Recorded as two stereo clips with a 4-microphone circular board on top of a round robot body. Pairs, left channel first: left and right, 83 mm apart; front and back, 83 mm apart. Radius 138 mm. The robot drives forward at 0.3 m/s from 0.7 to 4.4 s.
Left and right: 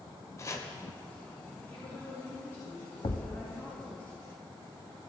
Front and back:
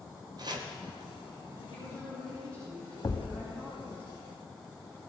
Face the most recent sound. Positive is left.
turn(degrees=90)